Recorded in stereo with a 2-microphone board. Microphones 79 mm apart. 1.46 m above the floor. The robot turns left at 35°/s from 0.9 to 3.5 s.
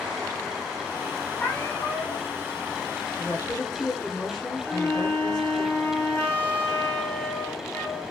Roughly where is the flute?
Centre.